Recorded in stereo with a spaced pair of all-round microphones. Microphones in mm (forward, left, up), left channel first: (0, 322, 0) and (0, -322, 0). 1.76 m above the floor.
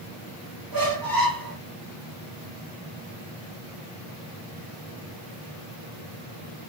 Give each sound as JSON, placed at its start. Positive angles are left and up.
{"t": 0.7, "sound": "a squeak", "side_deg": -30, "distance_m": 1.5}